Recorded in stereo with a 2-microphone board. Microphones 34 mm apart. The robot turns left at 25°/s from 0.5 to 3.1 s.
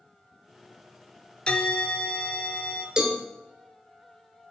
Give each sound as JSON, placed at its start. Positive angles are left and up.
{"t": 1.5, "sound": "a bell", "azimuth_deg": 125, "distance_m": 0.6}
{"t": 3.0, "sound": "a cowbell", "side_deg": -30, "distance_m": 1.2}